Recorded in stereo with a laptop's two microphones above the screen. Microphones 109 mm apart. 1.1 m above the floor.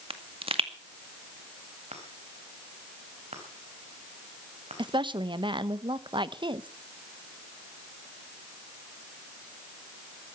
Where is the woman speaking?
45° right (ahead or behind), 1.0 m.